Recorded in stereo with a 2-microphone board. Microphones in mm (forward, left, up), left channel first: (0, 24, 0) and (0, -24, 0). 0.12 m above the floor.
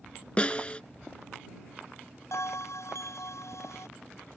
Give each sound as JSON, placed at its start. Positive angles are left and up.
{"t": 0.4, "sound": "a snare drum", "side_deg": 25}
{"t": 2.3, "sound": "a bell", "side_deg": 70}